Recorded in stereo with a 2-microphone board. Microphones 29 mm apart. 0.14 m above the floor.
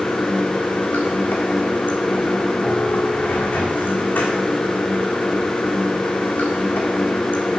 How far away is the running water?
About 1.9 m.